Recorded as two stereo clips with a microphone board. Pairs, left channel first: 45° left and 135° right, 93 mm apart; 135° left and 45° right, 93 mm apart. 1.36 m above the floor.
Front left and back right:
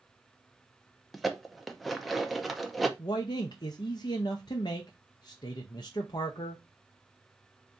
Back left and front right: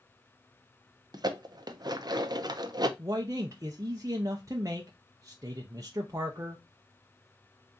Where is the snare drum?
I don't hear a snare drum.